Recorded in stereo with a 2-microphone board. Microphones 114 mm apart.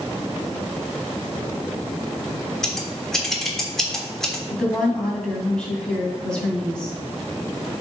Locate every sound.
2.6 s scissors: 5° left (ahead or behind), 1.3 m
4.5 s a woman speaking: 10° left (ahead or behind), 2.5 m